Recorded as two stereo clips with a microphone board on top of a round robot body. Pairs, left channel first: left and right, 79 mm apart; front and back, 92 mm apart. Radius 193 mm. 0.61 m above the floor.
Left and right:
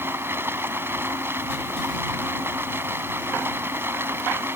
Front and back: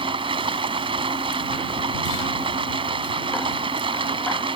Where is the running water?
155° right.